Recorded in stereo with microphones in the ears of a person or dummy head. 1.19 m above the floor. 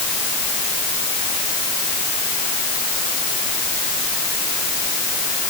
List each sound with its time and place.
Only background noise.